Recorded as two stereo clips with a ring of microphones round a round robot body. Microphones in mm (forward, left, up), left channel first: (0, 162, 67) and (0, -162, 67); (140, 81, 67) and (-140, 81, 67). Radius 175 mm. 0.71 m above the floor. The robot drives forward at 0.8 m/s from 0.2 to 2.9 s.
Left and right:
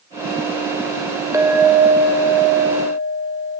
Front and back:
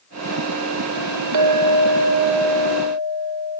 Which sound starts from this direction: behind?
A clink, at 1.3 s.